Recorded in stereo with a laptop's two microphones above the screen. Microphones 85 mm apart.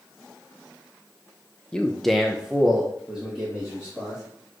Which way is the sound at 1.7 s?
10° left (ahead or behind).